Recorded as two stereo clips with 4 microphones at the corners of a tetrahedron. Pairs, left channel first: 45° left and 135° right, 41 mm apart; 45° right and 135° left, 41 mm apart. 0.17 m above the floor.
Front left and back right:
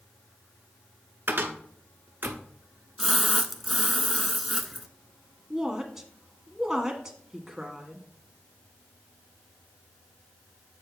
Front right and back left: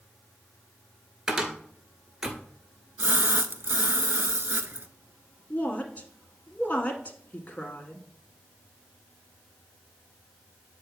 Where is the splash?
135° left, 0.5 m.